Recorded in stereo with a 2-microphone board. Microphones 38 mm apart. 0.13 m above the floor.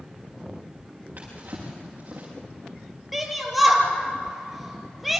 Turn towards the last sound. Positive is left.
turn(degrees=-5)  # may be behind; listen again after turning